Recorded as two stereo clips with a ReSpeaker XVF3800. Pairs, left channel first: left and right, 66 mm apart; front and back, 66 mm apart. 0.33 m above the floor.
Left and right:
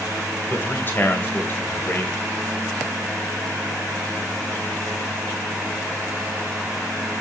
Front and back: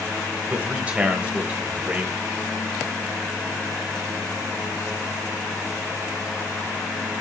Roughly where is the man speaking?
Behind left.